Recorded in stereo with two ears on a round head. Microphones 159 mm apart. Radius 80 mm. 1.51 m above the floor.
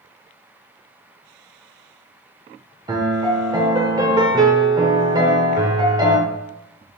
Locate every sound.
2.9 s a piano: 20° right (ahead or behind), 0.6 m